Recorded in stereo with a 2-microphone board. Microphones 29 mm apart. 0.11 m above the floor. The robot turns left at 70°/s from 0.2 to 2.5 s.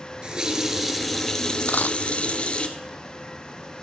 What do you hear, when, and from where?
0.2 s a running tap: 125° right, 1.2 m; by 2.7 s 75° left, 1.2 m
1.7 s a dropped coin: 80° left, 0.6 m; by 2.0 s 70° left (ahead or behind), 0.6 m